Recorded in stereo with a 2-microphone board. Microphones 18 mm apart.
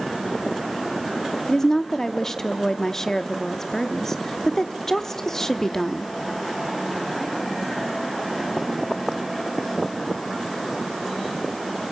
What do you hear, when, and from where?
1.5 s a woman speaking: 30° left (ahead or behind), 0.9 m